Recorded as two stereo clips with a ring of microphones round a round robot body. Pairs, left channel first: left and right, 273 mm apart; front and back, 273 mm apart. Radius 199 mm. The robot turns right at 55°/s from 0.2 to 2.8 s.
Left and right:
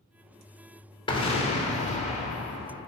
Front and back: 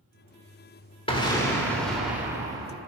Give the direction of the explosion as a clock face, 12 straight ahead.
11 o'clock.